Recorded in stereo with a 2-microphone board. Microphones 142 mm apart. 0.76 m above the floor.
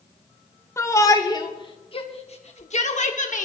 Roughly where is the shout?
Left.